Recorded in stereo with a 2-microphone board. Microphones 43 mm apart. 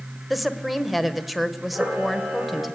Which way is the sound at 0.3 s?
Centre (ahead or behind).